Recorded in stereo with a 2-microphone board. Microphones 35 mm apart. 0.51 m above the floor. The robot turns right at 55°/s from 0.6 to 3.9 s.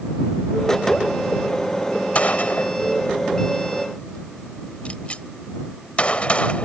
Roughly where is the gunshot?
Left.